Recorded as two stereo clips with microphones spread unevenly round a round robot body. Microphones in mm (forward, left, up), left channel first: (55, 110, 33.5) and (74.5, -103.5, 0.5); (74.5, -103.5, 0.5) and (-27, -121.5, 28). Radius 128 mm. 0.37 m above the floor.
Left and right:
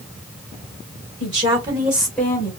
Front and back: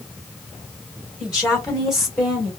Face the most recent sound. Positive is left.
turn(degrees=45)